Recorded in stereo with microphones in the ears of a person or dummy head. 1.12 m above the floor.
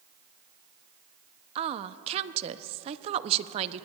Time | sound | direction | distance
1.6 | a woman speaking | 35° right (ahead or behind) | 0.5 m